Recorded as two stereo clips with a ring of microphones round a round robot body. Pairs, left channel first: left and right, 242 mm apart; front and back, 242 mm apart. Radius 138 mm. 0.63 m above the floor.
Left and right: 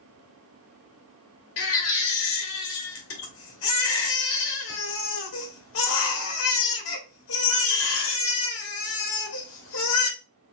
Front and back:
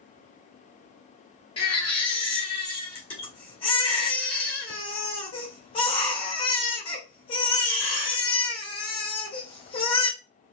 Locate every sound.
1.6 s a baby crying: 70° left, 1.2 m